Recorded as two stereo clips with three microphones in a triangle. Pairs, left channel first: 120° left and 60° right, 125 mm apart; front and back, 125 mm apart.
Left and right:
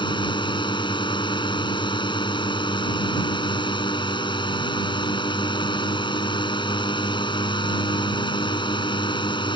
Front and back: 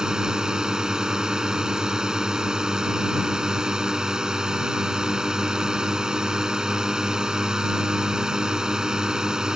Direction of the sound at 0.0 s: 100° left.